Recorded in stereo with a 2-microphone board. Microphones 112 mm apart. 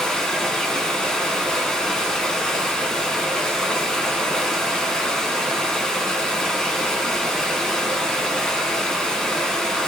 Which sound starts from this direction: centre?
Running water, at 0.0 s.